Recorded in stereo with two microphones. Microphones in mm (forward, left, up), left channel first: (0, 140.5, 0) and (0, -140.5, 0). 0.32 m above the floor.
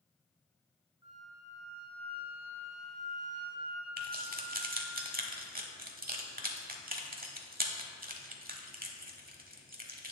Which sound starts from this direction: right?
Keys jangling, at 4.0 s.